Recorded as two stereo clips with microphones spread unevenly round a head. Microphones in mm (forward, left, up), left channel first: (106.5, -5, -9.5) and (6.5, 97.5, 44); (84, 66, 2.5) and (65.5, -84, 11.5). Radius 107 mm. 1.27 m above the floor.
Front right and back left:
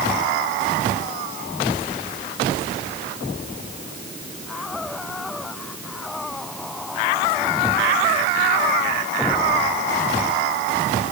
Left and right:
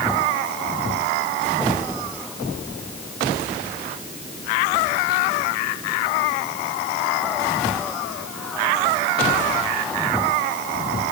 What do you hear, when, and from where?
Only background noise.